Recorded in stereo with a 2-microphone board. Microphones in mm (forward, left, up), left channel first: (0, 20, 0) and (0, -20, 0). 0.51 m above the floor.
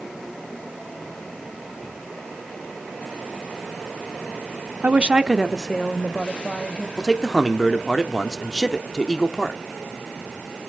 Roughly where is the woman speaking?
Right.